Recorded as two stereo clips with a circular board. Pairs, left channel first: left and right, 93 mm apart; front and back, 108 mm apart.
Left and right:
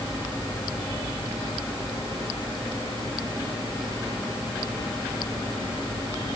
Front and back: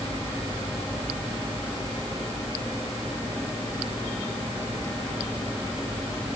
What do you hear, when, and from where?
Only background noise.